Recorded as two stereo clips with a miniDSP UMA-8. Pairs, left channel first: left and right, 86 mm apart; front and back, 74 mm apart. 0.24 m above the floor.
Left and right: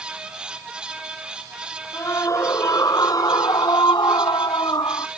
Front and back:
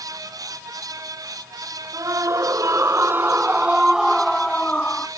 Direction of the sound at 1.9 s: 145° left.